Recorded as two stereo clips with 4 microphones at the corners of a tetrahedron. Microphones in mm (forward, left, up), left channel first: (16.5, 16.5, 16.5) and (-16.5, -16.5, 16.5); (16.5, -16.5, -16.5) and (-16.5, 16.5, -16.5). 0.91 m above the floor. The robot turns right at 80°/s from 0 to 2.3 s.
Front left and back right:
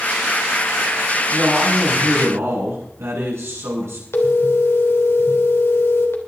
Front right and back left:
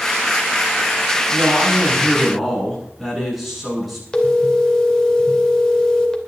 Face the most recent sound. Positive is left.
turn(degrees=30)